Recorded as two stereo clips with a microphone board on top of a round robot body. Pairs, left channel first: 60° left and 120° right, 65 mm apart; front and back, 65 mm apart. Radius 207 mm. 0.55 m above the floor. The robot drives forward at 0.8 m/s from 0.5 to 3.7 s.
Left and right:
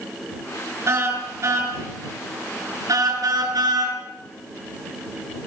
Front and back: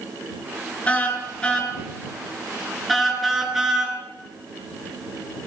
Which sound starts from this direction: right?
A car horn, at 0.9 s.